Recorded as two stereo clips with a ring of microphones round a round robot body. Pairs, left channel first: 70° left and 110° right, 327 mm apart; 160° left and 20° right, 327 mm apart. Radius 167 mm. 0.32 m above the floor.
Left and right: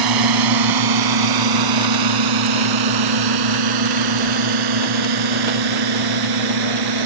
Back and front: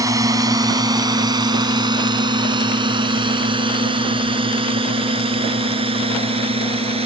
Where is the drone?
100° right; by 7.1 s 95° right.